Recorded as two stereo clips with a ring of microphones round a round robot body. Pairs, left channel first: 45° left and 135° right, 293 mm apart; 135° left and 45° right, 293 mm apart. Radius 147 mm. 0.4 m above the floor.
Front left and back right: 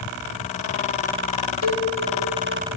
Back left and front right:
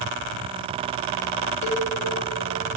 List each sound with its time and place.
1.6 s a cowbell: 65° left, 1.6 m